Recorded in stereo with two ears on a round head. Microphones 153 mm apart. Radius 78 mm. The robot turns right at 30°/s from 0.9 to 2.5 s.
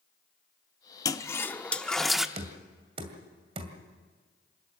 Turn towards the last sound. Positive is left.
turn(degrees=-35)  # may be behind; listen again after turning